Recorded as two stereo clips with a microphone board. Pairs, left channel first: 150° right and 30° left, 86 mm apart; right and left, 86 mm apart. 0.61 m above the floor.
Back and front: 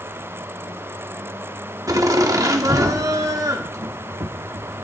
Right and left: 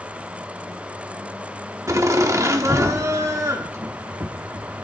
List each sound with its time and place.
1.9 s laughter: 55° left, 1.3 m